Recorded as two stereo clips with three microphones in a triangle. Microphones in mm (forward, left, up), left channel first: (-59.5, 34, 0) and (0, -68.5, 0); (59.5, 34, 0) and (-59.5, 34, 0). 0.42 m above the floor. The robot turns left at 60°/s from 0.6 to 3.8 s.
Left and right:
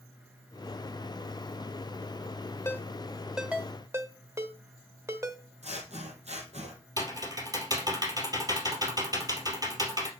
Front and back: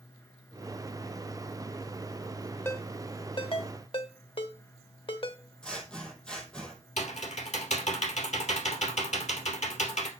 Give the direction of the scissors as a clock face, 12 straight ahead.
3 o'clock.